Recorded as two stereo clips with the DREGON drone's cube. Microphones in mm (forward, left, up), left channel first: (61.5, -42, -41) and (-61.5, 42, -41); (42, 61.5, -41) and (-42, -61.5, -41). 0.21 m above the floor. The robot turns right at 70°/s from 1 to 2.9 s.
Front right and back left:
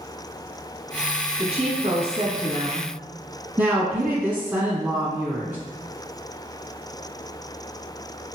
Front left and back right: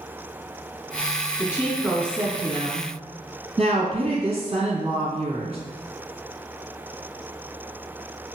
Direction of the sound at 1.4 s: 115° left.